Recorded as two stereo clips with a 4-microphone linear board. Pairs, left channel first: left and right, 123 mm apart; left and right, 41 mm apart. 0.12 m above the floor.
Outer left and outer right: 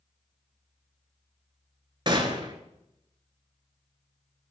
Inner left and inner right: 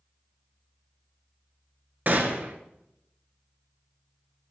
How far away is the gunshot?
About 0.7 m.